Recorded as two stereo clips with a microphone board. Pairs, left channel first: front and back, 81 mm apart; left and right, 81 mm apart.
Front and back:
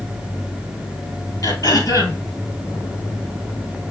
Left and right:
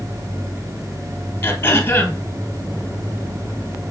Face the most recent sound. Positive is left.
turn(degrees=35)